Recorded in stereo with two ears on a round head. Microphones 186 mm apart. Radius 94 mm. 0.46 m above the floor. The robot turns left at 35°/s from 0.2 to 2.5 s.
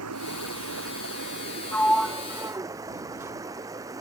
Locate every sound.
0.0 s running water: 80° right; by 4.0 s 165° right
1.7 s a sliding door: 10° left (ahead or behind); by 3.3 s 15° right (ahead or behind)